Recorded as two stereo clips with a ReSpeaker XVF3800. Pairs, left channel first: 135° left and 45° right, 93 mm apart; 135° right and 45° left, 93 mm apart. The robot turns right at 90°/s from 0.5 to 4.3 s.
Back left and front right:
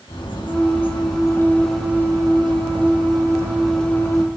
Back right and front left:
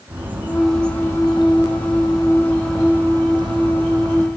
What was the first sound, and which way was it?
A bird, 115° left.